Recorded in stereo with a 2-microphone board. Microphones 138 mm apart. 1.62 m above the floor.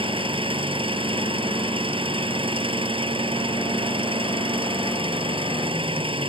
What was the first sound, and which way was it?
An engine running, 40° right (ahead or behind).